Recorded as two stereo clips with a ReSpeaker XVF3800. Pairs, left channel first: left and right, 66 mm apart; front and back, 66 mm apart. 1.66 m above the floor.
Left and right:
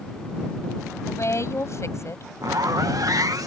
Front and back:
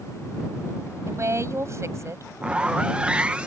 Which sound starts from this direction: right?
A zipper, at 2.4 s.